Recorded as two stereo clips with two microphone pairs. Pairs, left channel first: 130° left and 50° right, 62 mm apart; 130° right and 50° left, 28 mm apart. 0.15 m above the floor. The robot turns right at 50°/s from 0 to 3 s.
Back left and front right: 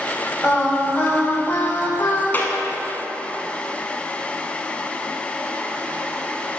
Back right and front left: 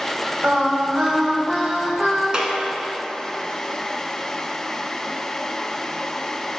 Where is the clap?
90° left, 1.2 m; by 2.5 s 105° left, 1.2 m.